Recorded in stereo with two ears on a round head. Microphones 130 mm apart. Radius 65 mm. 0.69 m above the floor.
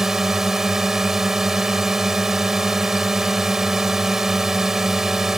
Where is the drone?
Centre (ahead or behind).